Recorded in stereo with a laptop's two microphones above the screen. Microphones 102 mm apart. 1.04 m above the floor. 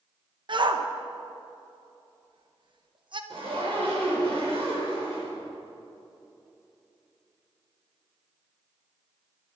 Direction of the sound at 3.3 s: 65° right (ahead or behind).